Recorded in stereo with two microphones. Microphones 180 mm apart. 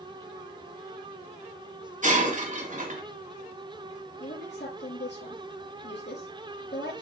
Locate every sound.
2.0 s breaking glass: 45° right (ahead or behind), 1.9 m
4.2 s a woman speaking: 80° left, 5 m